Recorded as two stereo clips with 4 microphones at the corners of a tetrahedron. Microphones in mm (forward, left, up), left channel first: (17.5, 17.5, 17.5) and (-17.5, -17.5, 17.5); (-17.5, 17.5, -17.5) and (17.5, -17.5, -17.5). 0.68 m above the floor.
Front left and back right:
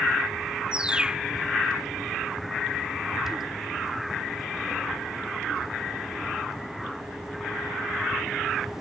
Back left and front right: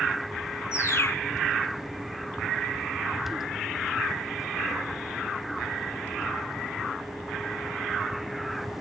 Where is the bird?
155° left.